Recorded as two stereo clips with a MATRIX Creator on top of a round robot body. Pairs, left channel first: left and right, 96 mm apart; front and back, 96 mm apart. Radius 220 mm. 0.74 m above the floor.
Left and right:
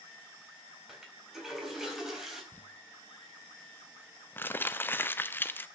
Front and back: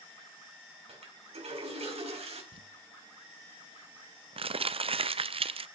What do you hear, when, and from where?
0.9 s a toilet flushing: 175° right, 4 m
2.5 s crumpling: 160° left, 0.8 m